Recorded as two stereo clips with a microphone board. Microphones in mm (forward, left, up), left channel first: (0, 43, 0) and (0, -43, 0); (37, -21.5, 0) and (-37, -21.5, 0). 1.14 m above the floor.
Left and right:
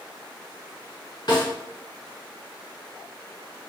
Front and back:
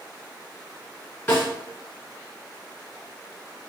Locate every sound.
1.3 s a snare drum: 60° left, 2 m